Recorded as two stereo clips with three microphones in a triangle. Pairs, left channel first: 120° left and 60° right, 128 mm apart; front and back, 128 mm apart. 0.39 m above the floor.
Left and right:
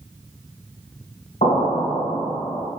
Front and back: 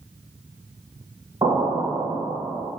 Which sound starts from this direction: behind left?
An explosion, at 1.4 s.